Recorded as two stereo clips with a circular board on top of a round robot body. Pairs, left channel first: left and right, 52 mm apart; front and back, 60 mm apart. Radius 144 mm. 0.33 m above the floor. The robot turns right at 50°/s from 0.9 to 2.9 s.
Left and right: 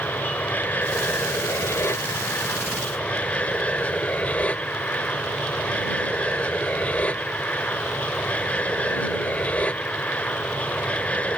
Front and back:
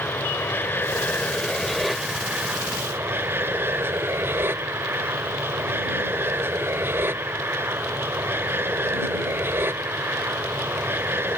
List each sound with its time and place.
0.0 s an aircraft: 45° left; by 11.4 s 145° left